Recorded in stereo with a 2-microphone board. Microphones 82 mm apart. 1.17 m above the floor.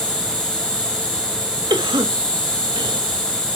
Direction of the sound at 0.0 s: 10° left (ahead or behind).